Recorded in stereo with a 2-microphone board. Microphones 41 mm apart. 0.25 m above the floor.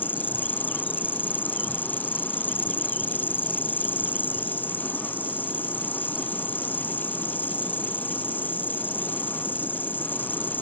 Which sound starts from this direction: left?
An insect, at 0.0 s.